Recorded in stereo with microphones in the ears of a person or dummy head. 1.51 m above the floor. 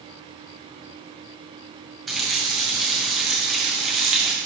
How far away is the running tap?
About 0.9 m.